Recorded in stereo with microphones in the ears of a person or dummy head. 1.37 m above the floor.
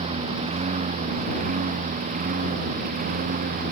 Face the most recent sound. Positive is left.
turn(degrees=-45)  # may be behind; listen again after turning